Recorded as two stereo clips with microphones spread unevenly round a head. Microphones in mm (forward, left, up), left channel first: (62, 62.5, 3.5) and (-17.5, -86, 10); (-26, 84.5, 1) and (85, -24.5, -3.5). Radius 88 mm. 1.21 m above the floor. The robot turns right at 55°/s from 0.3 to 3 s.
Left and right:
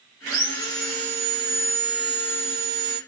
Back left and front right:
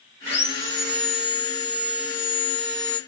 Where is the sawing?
120° right, 2.0 m; by 3.0 s 30° left, 2.0 m.